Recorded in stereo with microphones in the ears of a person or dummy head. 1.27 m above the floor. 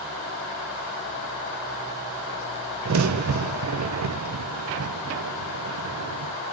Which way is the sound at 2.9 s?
70° right (ahead or behind).